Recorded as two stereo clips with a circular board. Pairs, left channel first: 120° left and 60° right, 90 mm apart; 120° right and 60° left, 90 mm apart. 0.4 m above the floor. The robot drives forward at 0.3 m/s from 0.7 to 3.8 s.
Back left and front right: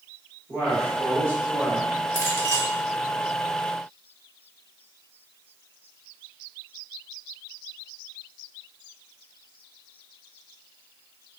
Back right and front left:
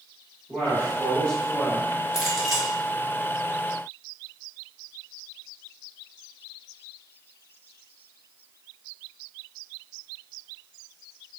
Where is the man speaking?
40° right, 1.2 m; by 2.0 s 75° right, 1.1 m.